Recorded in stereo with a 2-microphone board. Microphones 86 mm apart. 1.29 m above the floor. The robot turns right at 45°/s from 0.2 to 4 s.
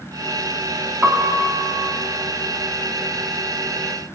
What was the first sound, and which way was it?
A piano, 20° right (ahead or behind).